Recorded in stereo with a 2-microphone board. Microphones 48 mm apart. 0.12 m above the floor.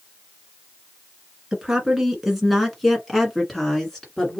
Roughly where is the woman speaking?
Centre.